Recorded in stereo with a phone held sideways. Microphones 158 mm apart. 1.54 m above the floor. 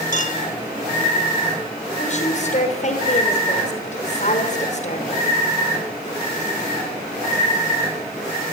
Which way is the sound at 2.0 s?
50° left (ahead or behind).